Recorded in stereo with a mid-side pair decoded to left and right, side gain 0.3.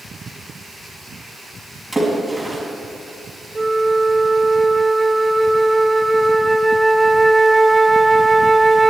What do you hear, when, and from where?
1.9 s a splash: 5° right, 5.5 m
3.5 s a flute: 25° right, 0.9 m